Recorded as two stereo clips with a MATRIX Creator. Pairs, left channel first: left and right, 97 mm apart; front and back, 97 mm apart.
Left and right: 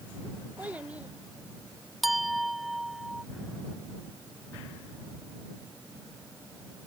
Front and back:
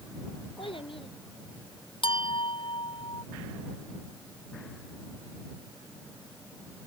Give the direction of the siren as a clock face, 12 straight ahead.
I don't hear a siren.